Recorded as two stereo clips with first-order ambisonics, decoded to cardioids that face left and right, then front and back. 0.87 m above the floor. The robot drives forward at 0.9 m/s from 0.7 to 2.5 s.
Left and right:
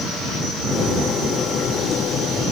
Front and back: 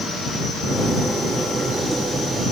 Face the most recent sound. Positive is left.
No sound to turn to.